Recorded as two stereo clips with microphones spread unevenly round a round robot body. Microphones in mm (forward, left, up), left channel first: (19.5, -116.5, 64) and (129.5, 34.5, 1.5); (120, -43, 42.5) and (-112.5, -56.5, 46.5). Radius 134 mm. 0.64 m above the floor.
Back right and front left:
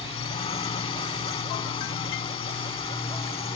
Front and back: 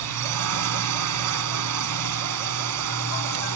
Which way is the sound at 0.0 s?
160° left.